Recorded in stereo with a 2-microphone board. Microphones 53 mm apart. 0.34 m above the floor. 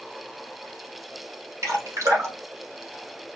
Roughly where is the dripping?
Right.